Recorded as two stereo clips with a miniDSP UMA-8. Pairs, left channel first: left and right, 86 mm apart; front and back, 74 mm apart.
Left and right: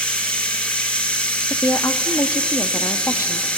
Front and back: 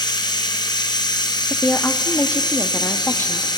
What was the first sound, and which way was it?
Running water, 15° left.